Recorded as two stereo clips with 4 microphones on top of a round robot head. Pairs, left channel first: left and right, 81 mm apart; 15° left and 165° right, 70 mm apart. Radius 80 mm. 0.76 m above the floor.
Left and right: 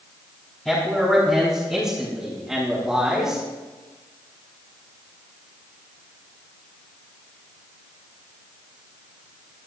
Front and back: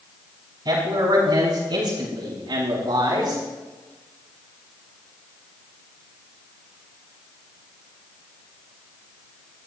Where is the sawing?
No sawing in this recording.